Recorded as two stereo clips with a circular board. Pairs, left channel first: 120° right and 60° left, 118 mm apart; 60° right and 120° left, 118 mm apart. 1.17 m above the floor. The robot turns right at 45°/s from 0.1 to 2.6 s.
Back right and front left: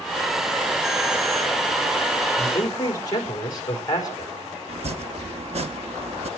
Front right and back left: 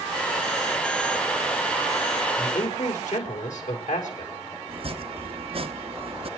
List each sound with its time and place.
2.4 s a man speaking: 70° right, 5 m; by 4.3 s 60° right, 5 m
4.7 s chopping: 85° left, 1.2 m